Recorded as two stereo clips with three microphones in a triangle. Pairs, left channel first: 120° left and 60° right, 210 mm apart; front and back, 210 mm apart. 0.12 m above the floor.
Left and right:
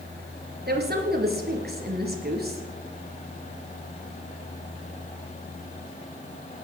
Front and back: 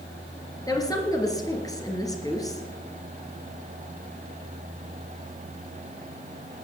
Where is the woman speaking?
70° right, 2.5 m.